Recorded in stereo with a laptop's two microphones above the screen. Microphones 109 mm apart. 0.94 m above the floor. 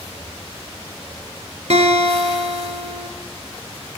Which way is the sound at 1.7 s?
75° right (ahead or behind).